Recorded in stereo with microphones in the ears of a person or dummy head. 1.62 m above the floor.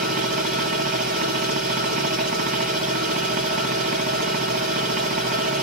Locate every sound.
0.0 s a machine running: 50° right (ahead or behind), 1.9 m